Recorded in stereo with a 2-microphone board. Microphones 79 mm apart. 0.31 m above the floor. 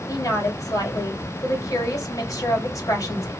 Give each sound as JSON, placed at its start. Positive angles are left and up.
{"t": 0.1, "sound": "a woman speaking", "side_deg": 50, "distance_m": 1.9}